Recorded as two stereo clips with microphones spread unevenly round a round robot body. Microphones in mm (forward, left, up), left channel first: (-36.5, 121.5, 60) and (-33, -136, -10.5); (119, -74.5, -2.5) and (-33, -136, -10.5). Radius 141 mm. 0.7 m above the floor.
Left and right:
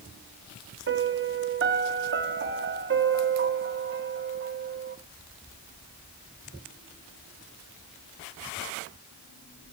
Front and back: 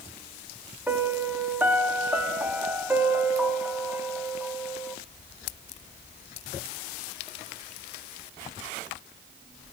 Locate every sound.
0.9 s a piano: 80° right, 1.1 m